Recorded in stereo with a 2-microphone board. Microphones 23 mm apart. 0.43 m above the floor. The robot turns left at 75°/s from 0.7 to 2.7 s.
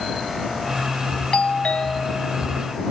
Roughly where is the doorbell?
Left.